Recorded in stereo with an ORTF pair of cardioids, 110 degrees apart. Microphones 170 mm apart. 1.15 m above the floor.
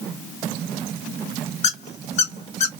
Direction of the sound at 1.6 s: 45° left.